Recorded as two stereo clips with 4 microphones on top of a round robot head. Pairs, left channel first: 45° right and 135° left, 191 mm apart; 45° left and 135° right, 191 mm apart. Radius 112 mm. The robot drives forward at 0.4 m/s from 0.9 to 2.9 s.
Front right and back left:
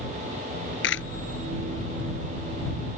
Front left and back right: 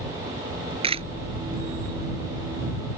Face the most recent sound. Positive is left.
turn(degrees=-75)